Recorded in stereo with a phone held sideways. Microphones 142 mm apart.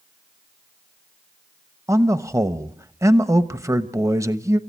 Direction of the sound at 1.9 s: 20° right (ahead or behind).